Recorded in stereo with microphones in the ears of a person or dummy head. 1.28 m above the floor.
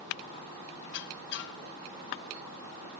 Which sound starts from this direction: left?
A squeak, at 0.8 s.